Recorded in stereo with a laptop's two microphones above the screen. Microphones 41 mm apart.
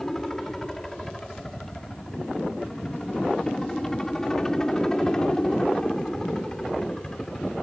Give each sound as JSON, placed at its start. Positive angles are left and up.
{"t": 0.0, "sound": "a helicopter", "side_deg": 10}